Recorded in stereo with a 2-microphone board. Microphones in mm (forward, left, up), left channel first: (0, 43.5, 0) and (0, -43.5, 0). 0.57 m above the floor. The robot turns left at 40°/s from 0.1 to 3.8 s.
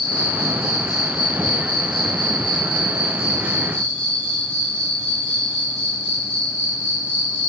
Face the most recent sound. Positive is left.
turn(degrees=15)